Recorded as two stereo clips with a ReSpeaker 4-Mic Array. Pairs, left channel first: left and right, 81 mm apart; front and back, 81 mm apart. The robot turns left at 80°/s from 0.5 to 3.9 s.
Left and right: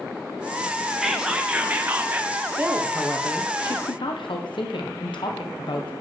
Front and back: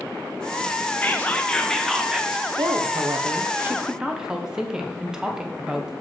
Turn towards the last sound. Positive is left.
turn(degrees=100)